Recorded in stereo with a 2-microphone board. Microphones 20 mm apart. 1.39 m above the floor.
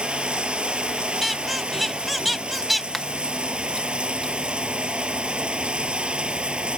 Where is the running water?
60° right (ahead or behind).